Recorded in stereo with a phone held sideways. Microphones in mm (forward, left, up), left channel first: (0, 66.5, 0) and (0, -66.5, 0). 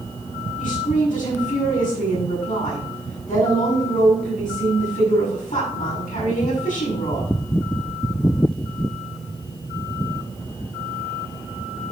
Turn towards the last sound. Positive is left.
turn(degrees=85)